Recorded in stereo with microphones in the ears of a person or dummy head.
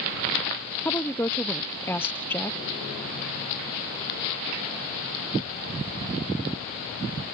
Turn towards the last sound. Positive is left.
turn(degrees=10)  # may be behind; listen again after turning